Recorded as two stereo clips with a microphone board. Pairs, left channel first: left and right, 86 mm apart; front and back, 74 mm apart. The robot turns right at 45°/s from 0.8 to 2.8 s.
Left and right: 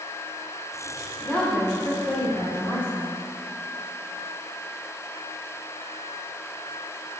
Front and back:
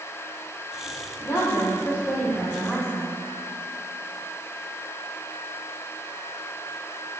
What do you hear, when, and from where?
1.2 s a woman speaking: 10° left, 2 m; by 3.1 s 85° left, 2 m